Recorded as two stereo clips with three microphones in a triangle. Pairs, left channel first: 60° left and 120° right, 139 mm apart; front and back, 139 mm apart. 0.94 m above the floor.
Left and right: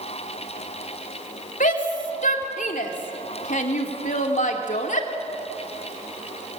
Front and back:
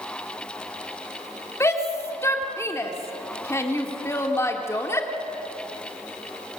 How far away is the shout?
About 2.5 m.